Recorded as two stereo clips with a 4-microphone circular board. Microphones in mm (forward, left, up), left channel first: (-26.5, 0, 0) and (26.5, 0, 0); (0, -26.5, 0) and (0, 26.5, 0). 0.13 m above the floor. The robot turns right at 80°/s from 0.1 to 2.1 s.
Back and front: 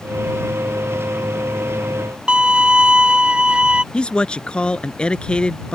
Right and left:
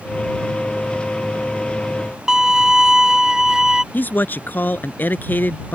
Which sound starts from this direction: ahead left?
A violin, at 2.3 s.